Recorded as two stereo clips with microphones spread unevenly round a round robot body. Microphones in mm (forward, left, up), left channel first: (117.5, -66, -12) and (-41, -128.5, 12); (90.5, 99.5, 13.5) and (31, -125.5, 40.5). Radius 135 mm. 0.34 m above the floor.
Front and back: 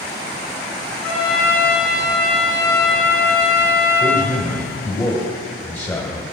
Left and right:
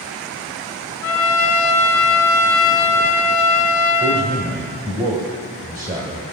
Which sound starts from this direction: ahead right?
A man speaking, at 4.0 s.